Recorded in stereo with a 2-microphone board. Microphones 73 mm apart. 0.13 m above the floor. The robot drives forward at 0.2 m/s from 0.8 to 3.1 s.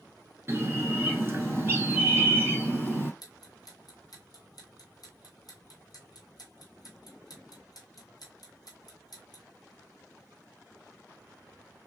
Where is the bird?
30° right (ahead or behind), 1.4 m.